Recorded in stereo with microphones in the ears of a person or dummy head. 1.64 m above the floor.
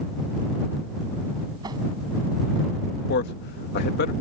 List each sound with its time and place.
1.6 s a whoosh: 20° right (ahead or behind)
3.1 s a man speaking: 55° left (ahead or behind)